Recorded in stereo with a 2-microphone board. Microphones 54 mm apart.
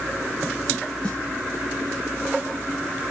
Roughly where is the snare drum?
Left.